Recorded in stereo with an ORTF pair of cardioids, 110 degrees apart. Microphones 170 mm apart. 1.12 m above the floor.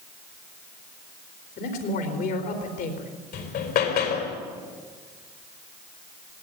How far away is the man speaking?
About 4 m.